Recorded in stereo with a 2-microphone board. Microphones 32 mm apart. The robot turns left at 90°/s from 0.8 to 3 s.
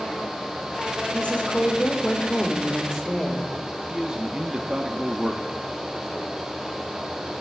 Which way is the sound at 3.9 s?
25° right (ahead or behind).